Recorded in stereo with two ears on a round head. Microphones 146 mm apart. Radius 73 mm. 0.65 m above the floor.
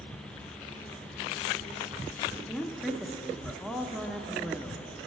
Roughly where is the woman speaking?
Centre.